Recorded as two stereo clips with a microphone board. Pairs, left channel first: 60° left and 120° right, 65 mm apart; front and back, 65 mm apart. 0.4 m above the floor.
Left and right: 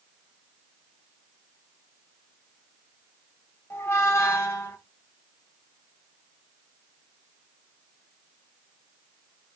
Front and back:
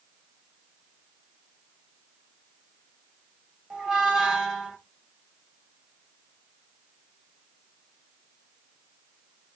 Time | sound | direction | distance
3.7 | a squeak | 100° left | 0.8 m